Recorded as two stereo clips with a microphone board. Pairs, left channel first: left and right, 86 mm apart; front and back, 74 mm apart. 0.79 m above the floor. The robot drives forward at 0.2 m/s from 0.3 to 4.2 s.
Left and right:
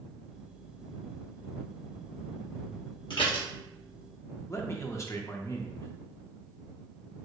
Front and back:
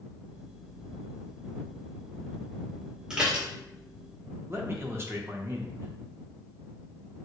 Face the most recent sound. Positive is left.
turn(degrees=135)